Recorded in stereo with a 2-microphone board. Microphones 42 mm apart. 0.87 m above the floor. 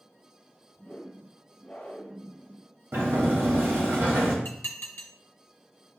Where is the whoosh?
45° left (ahead or behind), 0.9 m.